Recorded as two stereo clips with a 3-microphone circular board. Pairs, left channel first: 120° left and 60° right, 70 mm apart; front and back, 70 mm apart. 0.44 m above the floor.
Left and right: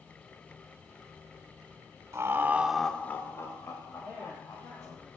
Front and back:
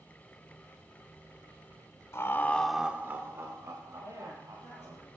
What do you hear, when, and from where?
2.1 s laughter: 30° right, 1.0 m; by 5.0 s 150° left, 3 m
4.0 s a woman speaking: 150° left, 8.5 m